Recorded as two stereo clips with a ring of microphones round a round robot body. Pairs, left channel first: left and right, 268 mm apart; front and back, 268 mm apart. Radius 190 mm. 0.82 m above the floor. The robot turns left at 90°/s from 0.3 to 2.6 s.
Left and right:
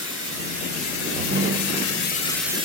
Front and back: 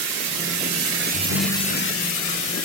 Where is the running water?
170° right, 0.7 m; by 2.6 s 15° right, 0.7 m.